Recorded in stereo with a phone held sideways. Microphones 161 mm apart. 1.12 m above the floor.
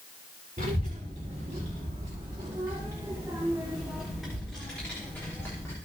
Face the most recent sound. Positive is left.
turn(degrees=15)  # may be behind; listen again after turning